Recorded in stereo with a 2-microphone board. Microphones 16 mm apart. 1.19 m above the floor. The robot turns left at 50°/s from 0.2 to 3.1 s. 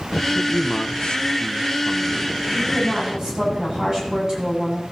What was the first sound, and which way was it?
A man speaking, 110° left.